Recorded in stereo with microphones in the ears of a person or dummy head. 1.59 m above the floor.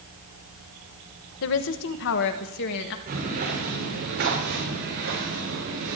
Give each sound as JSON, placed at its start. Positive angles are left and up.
{"t": 1.4, "sound": "a woman speaking", "side_deg": 65, "distance_m": 1.0}
{"t": 3.1, "sound": "footsteps", "side_deg": -50, "distance_m": 7.5}